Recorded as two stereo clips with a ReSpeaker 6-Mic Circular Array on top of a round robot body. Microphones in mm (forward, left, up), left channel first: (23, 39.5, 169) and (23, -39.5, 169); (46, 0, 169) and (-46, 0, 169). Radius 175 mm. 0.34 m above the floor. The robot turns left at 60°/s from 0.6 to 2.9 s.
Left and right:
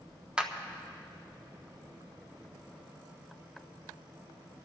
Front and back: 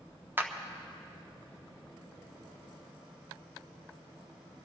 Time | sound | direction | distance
0.4 | a clap | 150° right | 1.3 m